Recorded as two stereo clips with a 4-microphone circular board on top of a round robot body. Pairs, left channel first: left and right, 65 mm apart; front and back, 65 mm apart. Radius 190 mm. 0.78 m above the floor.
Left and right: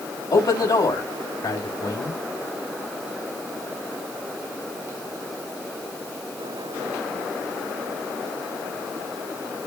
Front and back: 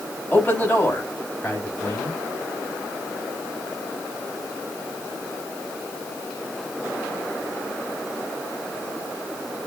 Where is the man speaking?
65° left, 6 m.